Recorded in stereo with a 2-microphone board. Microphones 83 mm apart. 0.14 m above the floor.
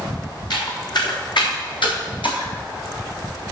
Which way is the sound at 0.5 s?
55° left (ahead or behind).